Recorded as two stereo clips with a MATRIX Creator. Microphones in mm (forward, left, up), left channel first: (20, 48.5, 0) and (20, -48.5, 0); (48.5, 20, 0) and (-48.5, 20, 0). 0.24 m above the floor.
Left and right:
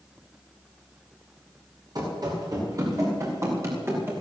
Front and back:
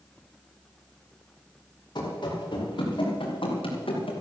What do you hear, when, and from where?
1.9 s running footsteps: 45° right, 5 m; by 4.1 s 25° right, 4.5 m